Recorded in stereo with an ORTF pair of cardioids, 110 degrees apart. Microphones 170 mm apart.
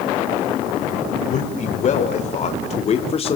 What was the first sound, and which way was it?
A man speaking, 45° left.